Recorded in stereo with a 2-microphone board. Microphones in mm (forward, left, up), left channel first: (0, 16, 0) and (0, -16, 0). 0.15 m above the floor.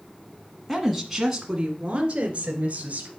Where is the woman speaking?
5° left (ahead or behind), 1.5 m; by 3.1 s 45° right (ahead or behind), 2.5 m.